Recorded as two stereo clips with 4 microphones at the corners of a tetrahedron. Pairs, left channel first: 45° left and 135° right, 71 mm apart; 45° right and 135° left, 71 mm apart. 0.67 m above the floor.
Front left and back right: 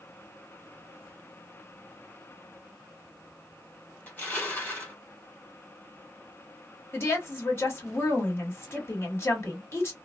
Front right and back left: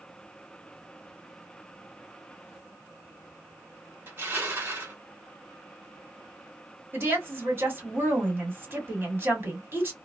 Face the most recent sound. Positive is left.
turn(degrees=90)